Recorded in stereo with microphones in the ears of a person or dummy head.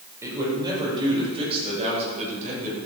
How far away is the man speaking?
About 5.5 m.